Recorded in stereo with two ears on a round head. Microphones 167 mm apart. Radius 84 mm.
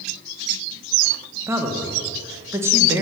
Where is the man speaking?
15° right (ahead or behind), 1.1 m.